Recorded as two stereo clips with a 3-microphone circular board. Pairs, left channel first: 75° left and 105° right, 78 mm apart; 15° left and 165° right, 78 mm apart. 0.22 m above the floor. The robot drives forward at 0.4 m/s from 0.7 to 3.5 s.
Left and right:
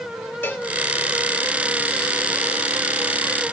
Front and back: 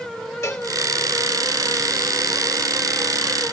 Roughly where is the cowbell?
Ahead left.